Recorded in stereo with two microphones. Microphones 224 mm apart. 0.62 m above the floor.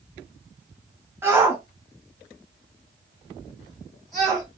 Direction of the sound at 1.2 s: 10° right (ahead or behind).